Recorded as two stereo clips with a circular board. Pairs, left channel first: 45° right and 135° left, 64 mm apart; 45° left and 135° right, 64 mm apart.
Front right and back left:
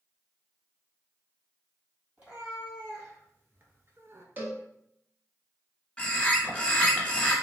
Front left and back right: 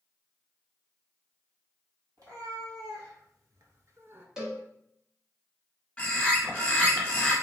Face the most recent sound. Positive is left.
turn(degrees=10)